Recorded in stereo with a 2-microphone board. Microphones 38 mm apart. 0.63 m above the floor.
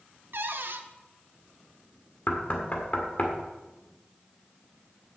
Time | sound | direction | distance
0.3 | a cupboard door | 65° right (ahead or behind) | 0.8 m
2.3 | knocking | 45° left (ahead or behind) | 1.6 m